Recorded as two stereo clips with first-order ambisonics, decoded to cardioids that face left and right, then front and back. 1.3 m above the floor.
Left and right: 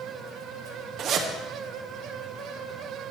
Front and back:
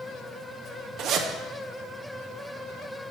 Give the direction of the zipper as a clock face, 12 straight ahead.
5 o'clock.